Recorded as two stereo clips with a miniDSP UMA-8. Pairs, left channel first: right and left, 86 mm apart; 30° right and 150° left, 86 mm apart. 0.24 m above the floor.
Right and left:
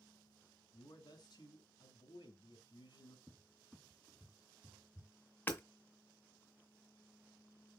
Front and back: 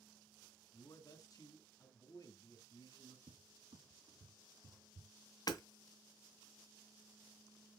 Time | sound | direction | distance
0.7 | a man speaking | 70° right | 2.5 m
3.3 | a cupboard door | 170° left | 1.3 m
5.5 | hammering | 30° right | 1.7 m